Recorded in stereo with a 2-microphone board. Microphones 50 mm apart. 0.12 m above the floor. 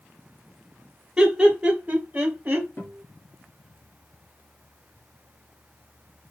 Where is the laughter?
15° right (ahead or behind), 1.6 m; by 2.7 s 35° right (ahead or behind), 1.7 m.